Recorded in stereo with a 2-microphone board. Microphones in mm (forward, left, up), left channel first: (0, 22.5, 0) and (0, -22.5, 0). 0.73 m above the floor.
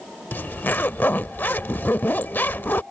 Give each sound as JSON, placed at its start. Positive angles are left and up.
{"t": 0.3, "sound": "a zipper", "side_deg": 45}